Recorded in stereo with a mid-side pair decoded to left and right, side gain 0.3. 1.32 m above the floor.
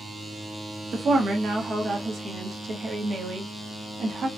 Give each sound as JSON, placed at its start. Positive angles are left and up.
{"t": 0.9, "sound": "a woman speaking", "azimuth_deg": -70, "distance_m": 0.8}